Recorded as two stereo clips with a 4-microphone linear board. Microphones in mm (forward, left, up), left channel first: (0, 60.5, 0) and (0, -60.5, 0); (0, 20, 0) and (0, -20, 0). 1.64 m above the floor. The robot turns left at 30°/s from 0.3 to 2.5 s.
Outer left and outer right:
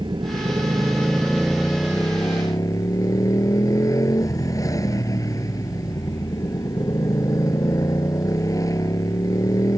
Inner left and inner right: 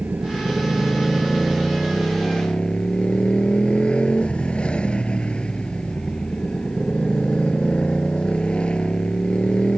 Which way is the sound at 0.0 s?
140° right.